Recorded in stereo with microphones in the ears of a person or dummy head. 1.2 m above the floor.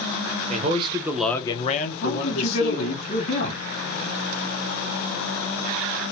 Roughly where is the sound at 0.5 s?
Right.